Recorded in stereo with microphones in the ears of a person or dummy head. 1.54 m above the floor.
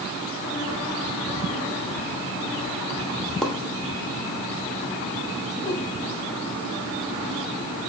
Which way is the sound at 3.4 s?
Centre (ahead or behind).